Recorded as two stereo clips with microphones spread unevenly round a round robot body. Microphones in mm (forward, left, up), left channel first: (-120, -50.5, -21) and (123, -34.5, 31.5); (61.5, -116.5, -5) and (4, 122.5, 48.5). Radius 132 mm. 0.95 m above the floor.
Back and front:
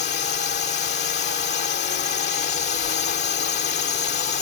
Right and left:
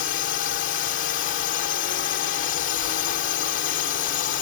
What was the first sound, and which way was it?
A drone, 125° right.